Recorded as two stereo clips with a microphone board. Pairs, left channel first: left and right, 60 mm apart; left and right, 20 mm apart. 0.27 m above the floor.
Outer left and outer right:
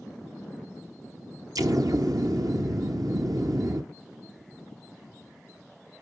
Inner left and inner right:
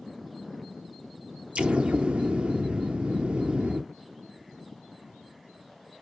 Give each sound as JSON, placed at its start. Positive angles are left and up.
{"t": 1.6, "sound": "an explosion", "side_deg": -70, "distance_m": 1.1}